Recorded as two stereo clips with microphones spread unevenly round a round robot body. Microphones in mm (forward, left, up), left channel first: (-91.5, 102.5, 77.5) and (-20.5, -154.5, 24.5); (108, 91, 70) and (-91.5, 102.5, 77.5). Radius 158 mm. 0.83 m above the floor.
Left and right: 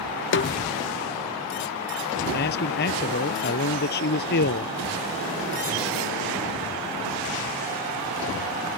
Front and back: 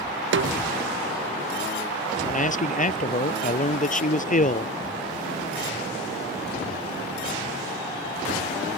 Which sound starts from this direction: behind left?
A snare drum, at 0.3 s.